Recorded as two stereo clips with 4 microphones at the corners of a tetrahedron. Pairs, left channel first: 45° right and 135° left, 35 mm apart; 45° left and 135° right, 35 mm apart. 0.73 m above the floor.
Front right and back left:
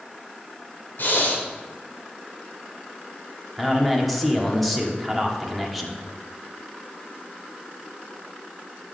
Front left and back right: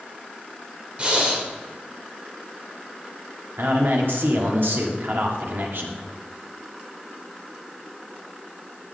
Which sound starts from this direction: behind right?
A man speaking, at 3.6 s.